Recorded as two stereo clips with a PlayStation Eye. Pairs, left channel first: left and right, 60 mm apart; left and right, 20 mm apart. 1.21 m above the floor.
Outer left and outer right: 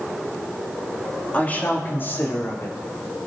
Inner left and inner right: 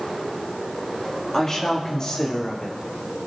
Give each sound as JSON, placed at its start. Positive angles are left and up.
{"t": 1.3, "sound": "a woman speaking", "side_deg": 25, "distance_m": 1.9}